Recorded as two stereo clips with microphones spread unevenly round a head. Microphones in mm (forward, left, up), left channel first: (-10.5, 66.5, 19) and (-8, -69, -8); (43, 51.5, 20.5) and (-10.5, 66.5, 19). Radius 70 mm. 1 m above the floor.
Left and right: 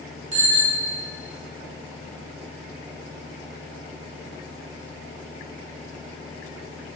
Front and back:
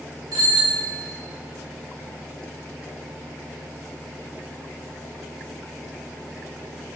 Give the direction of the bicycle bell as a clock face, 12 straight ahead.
4 o'clock.